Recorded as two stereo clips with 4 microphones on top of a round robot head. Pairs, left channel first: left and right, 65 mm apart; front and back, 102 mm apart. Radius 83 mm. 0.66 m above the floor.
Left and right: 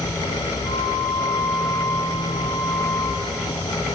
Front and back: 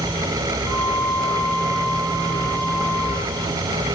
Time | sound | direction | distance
0.6 | a flute | straight ahead | 4 m